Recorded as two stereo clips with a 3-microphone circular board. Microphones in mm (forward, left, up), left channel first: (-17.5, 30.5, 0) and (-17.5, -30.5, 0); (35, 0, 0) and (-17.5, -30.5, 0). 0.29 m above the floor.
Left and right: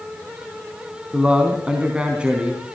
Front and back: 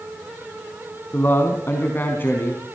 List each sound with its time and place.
1.1 s a man speaking: 15° right, 3 m